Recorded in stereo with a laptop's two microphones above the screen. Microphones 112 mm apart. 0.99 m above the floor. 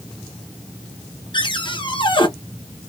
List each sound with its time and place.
1.3 s a cupboard door: 45° left (ahead or behind), 0.8 m